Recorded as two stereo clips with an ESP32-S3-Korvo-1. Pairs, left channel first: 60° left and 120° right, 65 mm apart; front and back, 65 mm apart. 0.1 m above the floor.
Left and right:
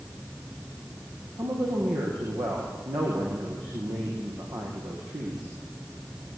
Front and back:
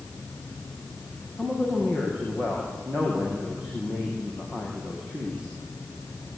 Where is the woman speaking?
105° right, 7 m.